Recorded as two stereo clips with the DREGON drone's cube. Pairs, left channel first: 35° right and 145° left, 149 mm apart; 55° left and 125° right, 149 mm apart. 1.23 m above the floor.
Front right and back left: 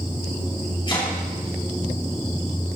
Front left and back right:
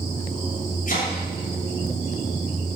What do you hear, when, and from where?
0.9 s chopping: 25° left, 7 m